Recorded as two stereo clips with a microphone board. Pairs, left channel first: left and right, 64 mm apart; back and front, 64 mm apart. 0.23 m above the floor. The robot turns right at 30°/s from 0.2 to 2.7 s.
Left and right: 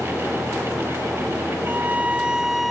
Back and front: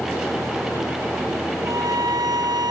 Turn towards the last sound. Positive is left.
turn(degrees=0)